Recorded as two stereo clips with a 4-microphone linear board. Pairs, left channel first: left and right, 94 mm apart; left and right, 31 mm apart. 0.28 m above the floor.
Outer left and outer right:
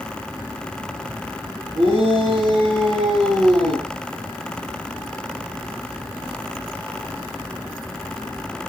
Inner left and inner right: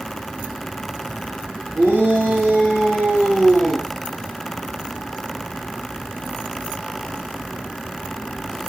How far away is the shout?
About 8.5 m.